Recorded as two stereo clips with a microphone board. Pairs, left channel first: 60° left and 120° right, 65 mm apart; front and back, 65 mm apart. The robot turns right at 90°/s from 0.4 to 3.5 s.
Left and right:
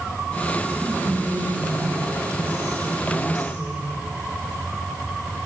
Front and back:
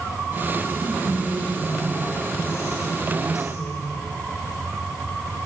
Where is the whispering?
110° left, 3.5 m; by 4.0 s 10° right, 3.5 m.